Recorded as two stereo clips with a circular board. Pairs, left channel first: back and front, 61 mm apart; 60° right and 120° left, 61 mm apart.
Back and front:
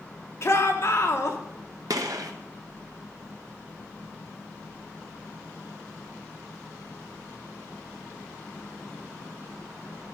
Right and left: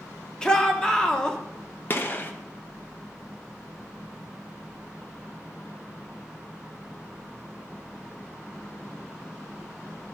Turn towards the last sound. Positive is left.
turn(degrees=-5)